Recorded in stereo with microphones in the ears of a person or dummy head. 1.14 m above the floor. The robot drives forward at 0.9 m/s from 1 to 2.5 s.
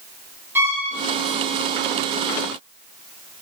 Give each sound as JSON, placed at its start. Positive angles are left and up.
{"t": 0.6, "sound": "a violin", "side_deg": -10, "distance_m": 2.5}